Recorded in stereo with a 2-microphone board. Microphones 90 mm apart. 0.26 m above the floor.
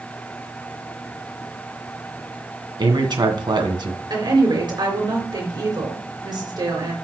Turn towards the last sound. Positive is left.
turn(degrees=-50)  # may be behind; listen again after turning